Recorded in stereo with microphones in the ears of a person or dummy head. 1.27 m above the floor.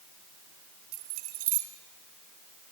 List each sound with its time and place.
0.9 s keys jangling: 50° right (ahead or behind), 2 m